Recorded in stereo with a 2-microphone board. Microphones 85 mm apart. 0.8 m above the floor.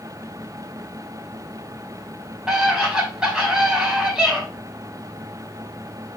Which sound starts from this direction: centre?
A scream, at 2.5 s.